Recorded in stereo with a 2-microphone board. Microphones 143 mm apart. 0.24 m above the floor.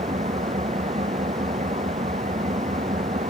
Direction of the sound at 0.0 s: 55° right (ahead or behind).